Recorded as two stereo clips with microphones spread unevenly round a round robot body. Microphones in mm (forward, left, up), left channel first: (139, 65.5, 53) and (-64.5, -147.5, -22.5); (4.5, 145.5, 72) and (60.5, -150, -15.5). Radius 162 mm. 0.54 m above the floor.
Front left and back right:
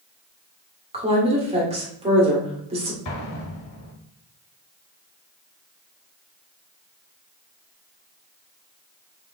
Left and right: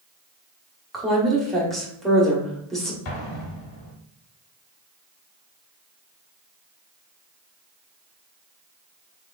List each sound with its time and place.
0.9 s a woman speaking: 145° right, 1.2 m
3.0 s an explosion: 85° left, 0.9 m